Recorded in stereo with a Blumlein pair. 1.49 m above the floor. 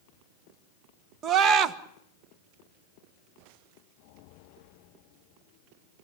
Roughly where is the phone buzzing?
I don't hear a phone buzzing.